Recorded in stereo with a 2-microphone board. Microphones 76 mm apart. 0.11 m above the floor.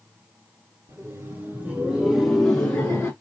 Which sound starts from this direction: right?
Laughter, at 0.9 s.